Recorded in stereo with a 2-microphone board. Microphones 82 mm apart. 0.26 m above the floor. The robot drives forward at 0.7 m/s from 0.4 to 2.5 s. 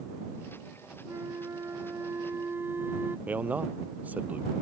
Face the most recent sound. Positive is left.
turn(degrees=-20)  # may be behind; listen again after turning